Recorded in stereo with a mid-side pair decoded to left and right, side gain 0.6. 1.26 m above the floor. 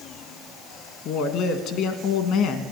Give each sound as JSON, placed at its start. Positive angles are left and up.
{"t": 1.1, "sound": "a woman speaking", "azimuth_deg": 65, "distance_m": 1.5}